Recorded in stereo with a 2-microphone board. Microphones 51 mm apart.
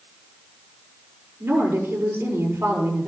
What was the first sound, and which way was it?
A woman speaking, 50° right (ahead or behind).